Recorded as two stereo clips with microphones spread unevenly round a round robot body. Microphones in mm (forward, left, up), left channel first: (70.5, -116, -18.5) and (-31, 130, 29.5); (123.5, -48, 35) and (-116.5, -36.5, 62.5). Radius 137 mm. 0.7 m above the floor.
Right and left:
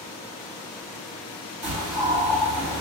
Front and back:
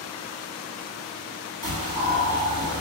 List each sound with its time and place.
1.6 s a bird: 175° left, 1.6 m